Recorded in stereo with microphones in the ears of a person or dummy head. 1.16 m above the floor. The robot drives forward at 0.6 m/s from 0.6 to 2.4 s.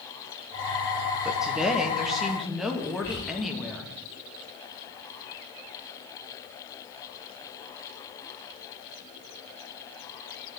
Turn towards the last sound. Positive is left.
turn(degrees=30)  # may be behind; listen again after turning